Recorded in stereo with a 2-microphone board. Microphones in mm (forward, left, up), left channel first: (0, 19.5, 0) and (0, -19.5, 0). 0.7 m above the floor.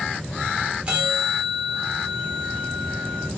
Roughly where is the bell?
Right.